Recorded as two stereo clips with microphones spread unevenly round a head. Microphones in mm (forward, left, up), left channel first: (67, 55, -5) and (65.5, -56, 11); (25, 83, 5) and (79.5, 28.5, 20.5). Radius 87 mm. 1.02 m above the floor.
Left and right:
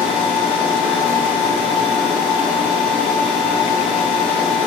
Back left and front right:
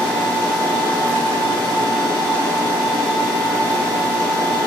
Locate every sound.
0.0 s a machine running: 170° right, 4.5 m